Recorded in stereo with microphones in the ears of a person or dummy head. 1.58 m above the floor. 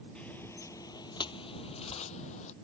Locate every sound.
0.1 s footsteps: 5° left (ahead or behind); by 2.5 s 40° left (ahead or behind)